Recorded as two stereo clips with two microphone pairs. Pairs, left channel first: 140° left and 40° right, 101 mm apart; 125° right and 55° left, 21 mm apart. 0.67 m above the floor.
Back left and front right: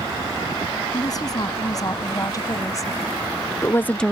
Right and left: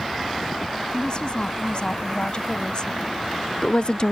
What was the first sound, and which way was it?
A woman speaking, 170° right.